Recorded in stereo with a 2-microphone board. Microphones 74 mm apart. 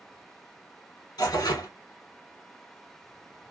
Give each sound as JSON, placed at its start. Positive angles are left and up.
{"t": 1.2, "sound": "tearing paper", "side_deg": 70, "distance_m": 0.9}